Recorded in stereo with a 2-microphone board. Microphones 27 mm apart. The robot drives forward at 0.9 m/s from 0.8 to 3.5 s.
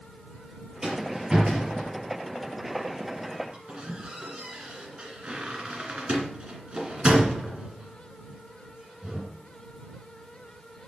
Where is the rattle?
20° right (ahead or behind), 4 m; by 9.3 s 45° right (ahead or behind), 2 m.